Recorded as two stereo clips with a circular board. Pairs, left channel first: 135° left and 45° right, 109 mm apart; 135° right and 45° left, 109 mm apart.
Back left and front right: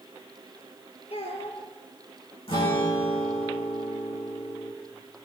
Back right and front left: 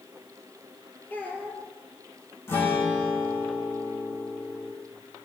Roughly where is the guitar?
Behind.